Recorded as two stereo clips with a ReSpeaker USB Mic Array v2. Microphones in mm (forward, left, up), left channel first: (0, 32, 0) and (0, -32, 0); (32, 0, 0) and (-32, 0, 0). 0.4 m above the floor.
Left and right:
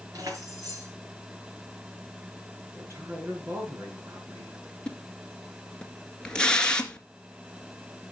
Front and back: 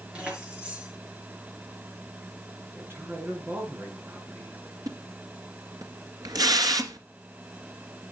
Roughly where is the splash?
Behind.